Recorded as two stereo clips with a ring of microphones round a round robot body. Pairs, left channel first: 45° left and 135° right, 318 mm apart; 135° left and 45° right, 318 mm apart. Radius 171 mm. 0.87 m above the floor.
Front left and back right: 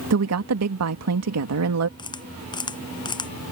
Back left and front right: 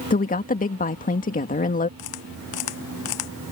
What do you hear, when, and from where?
0.1 s a woman speaking: 165° right
2.0 s a camera shutter: 120° left